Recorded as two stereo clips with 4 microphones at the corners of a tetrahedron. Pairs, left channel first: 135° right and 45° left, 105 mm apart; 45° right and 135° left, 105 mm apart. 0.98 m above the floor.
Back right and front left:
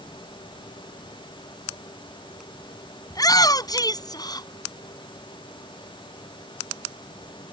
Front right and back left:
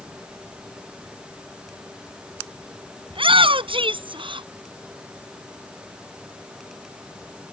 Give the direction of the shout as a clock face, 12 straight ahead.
6 o'clock.